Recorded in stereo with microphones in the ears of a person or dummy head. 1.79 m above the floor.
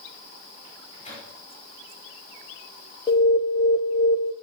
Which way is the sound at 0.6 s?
35° left (ahead or behind).